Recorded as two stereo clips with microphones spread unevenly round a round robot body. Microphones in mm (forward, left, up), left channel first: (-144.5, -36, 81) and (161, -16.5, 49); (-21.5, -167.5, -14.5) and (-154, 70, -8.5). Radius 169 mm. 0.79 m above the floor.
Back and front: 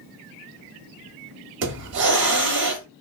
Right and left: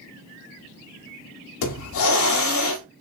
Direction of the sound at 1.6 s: 50° right.